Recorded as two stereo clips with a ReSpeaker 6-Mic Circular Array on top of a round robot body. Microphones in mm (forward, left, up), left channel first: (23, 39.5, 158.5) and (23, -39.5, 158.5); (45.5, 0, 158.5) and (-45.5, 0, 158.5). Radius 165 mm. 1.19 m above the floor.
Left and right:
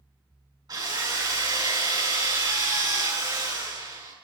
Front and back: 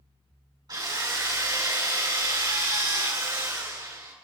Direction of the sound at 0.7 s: 130° right.